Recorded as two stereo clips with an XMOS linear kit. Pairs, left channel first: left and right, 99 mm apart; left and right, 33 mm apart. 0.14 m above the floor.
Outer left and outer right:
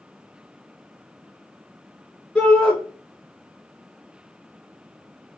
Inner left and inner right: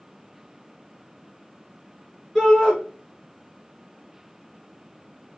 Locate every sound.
2.4 s a shout: 5° left (ahead or behind), 1.6 m